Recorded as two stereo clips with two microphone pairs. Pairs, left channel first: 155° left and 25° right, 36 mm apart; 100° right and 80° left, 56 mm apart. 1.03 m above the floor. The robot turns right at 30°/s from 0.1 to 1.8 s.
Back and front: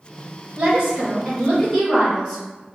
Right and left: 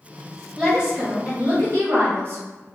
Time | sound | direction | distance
0.6 | a woman speaking | 5° right | 1.3 m